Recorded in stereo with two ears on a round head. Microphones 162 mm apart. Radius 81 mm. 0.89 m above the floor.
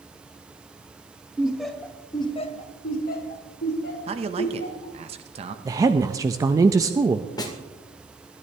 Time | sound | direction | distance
1.4 | laughter | 5° right (ahead or behind) | 1.5 m
4.1 | a man speaking | 35° right (ahead or behind) | 1.1 m
5.7 | a woman speaking | 20° right (ahead or behind) | 0.6 m
7.4 | a snare drum | 20° left (ahead or behind) | 1.8 m